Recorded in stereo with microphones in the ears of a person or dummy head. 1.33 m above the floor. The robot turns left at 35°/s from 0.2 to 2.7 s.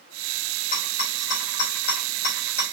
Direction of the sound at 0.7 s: 45° left (ahead or behind).